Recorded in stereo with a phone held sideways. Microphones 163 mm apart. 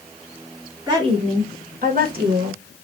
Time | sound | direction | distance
0.9 | a woman speaking | 25° right (ahead or behind) | 1.0 m